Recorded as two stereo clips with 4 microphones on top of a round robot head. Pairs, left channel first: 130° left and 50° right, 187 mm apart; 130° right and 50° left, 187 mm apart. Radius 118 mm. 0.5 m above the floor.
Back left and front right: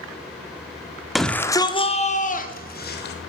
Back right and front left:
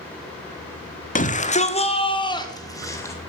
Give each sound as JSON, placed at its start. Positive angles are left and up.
{"t": 1.1, "sound": "a shout", "azimuth_deg": -135, "distance_m": 1.2}